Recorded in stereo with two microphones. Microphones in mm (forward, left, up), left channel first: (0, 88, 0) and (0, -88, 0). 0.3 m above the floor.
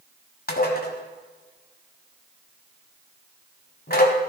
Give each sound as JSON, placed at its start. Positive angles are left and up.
{"t": 0.5, "sound": "dishes clattering", "side_deg": 60, "distance_m": 1.4}